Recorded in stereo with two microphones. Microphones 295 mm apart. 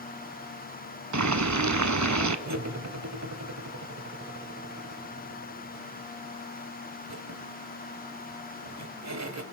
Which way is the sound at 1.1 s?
70° right (ahead or behind).